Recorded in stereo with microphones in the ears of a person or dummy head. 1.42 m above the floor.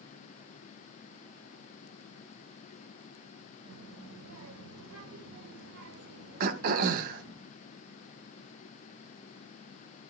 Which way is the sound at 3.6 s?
85° right.